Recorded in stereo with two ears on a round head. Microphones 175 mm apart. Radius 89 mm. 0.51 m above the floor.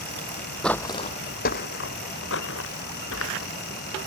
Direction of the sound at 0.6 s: 5° left (ahead or behind).